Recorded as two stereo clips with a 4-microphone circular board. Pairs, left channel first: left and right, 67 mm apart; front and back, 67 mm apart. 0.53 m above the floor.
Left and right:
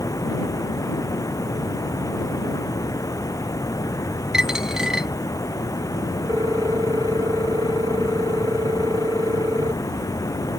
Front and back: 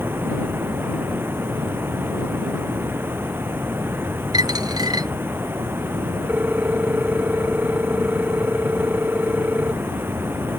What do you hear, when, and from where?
0.0 s running water: 125° left
4.3 s a dropped coin: 170° right
6.3 s a ringtone: 110° right